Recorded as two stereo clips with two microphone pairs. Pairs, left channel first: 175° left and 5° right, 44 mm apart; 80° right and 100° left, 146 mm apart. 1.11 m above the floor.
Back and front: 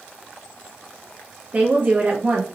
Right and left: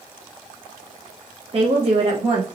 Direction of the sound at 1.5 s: 50° left.